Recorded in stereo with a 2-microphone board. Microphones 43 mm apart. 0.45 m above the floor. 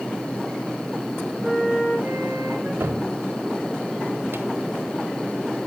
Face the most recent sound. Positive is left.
turn(degrees=-65)  # may be behind; listen again after turning